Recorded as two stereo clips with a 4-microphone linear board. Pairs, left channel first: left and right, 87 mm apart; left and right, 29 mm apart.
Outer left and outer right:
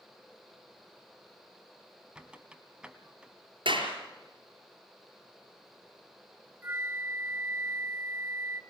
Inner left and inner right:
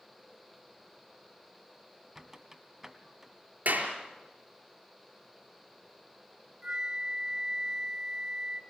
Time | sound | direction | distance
2.1 | a squeak | 10° right (ahead or behind) | 1.3 m
3.6 | a clap | 75° right (ahead or behind) | 5 m
6.6 | a flute | 25° right (ahead or behind) | 1.4 m